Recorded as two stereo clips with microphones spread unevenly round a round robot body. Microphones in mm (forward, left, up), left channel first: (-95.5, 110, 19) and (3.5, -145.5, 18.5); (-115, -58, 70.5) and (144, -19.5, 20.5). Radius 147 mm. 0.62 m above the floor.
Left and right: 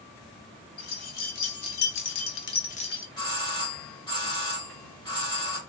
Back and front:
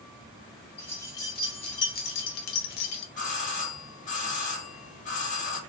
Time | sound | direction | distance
0.8 | keys jangling | 100° left | 1.2 m
3.2 | a doorbell | 150° left | 1.0 m